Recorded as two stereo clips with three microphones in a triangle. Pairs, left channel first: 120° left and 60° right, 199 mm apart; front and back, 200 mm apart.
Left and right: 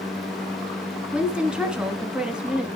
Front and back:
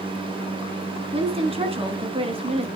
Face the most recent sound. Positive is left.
turn(degrees=-140)